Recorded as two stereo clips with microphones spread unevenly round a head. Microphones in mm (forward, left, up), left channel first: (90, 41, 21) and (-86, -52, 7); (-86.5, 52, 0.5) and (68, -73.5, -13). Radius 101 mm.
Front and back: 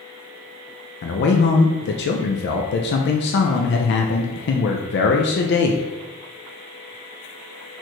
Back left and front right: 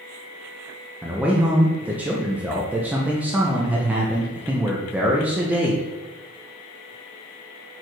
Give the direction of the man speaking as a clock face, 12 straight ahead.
11 o'clock.